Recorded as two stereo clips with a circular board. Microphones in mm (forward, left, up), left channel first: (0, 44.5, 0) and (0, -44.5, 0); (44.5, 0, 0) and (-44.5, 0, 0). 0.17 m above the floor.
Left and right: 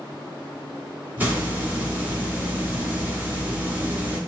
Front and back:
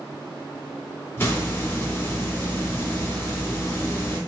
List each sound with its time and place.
1.2 s a hiss: 45° right, 1.2 m